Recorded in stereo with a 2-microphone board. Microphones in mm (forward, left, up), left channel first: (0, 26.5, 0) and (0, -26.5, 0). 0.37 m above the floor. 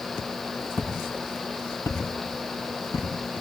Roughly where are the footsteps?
Left.